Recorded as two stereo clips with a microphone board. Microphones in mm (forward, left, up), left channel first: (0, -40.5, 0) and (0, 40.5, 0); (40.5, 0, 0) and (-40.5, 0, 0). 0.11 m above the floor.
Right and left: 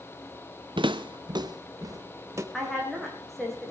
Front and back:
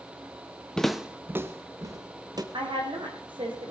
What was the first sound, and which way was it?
Footsteps, 80° left.